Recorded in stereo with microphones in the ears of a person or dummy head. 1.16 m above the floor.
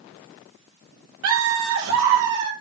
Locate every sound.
1.2 s laughter: 80° right, 2.5 m